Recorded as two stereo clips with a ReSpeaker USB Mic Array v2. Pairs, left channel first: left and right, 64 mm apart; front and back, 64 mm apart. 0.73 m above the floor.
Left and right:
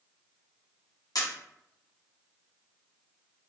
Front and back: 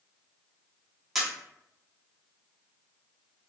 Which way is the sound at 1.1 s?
90° left.